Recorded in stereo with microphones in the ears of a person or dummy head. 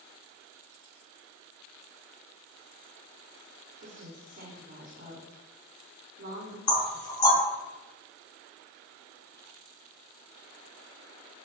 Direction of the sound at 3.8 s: 45° right (ahead or behind).